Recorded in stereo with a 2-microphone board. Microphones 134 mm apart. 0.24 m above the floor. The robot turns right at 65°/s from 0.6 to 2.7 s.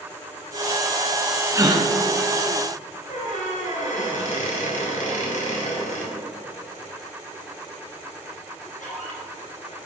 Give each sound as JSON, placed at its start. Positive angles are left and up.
{"t": 1.5, "sound": "a gasp", "side_deg": -20, "distance_m": 0.9}
{"t": 3.1, "sound": "a squeak", "side_deg": 65, "distance_m": 2.5}